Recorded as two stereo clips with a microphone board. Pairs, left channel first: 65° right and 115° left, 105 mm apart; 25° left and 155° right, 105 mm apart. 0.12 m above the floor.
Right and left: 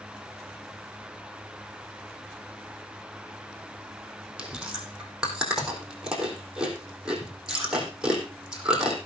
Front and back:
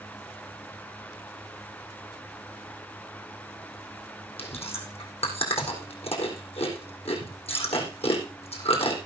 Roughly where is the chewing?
Ahead left.